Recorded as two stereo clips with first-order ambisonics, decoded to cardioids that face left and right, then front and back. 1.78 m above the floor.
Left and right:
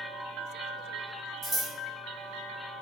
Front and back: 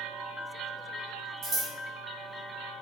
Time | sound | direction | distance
1.4 | scissors | 150° right | 1.0 m